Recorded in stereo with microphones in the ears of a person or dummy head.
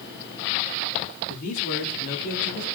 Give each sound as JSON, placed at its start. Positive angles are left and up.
{"t": 1.3, "sound": "a man speaking", "side_deg": 50, "distance_m": 4.0}